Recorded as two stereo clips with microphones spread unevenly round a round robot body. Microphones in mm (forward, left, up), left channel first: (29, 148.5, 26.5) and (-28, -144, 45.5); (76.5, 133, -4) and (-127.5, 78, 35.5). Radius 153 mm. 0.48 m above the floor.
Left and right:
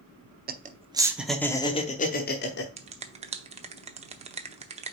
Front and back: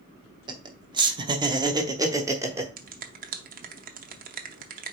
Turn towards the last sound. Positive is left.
turn(degrees=-155)